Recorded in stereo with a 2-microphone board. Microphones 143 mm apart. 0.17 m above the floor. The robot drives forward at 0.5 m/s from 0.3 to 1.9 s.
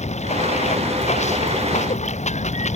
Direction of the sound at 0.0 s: 55° left (ahead or behind).